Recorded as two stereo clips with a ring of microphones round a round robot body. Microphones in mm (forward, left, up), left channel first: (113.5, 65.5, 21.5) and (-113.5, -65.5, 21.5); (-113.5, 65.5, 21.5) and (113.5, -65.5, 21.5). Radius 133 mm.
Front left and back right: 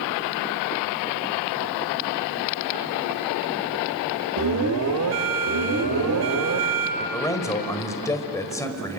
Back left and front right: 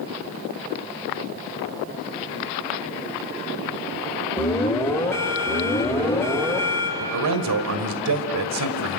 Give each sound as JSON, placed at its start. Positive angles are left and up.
{"t": 4.4, "sound": "an alarm", "azimuth_deg": -130, "distance_m": 2.5}
{"t": 7.0, "sound": "a man speaking", "azimuth_deg": -50, "distance_m": 2.0}